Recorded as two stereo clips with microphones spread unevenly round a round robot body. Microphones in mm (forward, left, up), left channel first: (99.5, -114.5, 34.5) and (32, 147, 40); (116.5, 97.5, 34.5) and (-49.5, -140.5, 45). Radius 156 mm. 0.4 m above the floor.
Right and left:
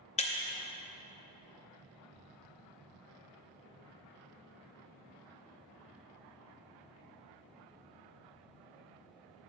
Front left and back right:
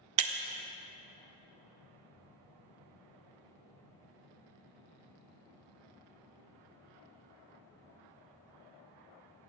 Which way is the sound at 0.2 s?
145° right.